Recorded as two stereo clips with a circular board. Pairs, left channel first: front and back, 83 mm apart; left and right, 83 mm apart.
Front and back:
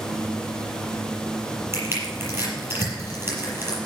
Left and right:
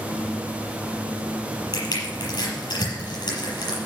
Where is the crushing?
120° left, 6.5 m.